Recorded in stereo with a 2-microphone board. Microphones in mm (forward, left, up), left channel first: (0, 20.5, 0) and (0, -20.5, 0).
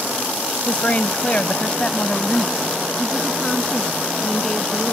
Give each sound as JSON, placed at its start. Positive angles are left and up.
{"t": 0.7, "sound": "a woman speaking", "side_deg": 35}